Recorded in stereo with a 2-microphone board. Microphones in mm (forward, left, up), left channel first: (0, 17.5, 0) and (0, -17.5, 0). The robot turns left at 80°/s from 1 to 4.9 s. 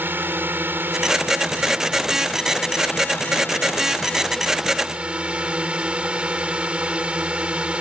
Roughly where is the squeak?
I don't hear a squeak.